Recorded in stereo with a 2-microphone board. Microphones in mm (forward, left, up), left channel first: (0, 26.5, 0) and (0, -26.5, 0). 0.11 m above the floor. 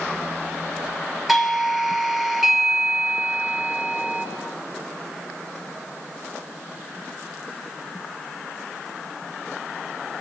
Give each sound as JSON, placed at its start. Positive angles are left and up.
{"t": 1.3, "sound": "a doorbell", "side_deg": -5, "distance_m": 3.0}